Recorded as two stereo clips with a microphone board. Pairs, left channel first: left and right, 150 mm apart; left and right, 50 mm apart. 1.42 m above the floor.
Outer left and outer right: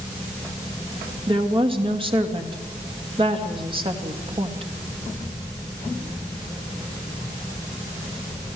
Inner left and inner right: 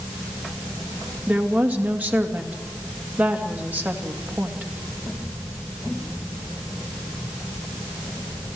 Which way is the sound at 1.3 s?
35° right (ahead or behind).